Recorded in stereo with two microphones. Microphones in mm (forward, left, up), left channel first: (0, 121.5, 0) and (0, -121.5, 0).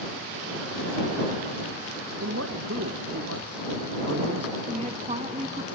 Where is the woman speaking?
30° right (ahead or behind).